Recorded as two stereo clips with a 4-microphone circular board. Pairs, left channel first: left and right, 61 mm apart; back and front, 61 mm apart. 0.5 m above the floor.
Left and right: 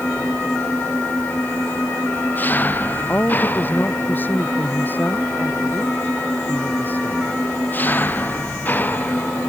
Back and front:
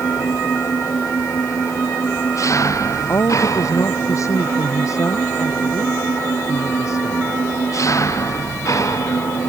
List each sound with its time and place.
0.0 s an engine running: 150° left
3.1 s a woman speaking: 150° left